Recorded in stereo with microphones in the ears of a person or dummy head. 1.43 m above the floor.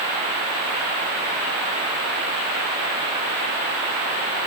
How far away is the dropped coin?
I don't hear a dropped coin.